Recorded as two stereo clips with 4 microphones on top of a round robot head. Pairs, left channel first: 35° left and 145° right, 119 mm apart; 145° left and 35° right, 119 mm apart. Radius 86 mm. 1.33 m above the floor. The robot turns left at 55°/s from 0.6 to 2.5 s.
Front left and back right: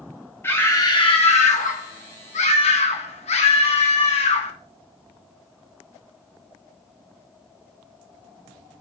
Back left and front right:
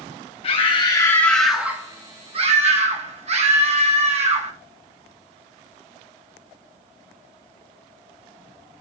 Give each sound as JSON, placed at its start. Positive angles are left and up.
{"t": 0.4, "sound": "a scream", "azimuth_deg": 105, "distance_m": 2.5}